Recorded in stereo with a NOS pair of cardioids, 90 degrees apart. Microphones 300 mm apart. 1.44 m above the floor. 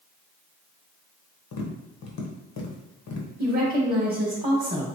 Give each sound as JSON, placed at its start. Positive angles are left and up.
{"t": 1.5, "sound": "tapping", "azimuth_deg": 55, "distance_m": 0.9}
{"t": 3.4, "sound": "a woman speaking", "azimuth_deg": -20, "distance_m": 1.2}